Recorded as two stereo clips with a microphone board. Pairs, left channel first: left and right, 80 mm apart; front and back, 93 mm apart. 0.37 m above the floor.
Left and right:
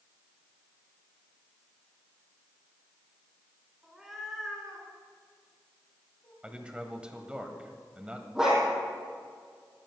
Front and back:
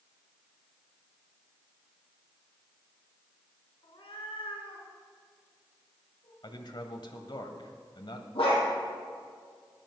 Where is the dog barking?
10° right, 4 m.